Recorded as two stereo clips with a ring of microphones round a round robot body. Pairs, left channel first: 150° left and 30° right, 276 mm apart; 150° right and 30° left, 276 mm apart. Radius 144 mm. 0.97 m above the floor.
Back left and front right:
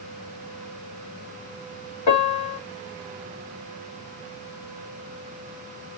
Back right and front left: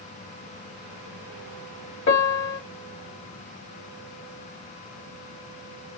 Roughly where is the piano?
Behind.